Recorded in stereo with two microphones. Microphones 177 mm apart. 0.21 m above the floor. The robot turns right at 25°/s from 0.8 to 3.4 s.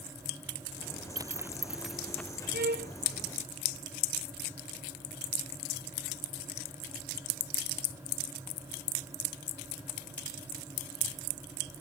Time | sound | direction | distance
1.2 | a zipper | 20° right (ahead or behind) | ?
2.5 | a violin | 70° right (ahead or behind) | ?